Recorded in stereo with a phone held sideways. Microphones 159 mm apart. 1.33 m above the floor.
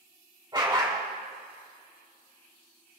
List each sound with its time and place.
0.5 s a dog barking: 30° right (ahead or behind), 2.5 m